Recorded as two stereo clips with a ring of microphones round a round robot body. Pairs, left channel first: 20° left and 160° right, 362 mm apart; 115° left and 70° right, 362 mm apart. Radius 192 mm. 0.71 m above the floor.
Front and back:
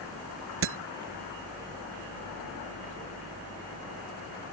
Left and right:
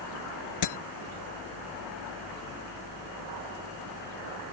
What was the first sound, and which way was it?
Breaking glass, 150° left.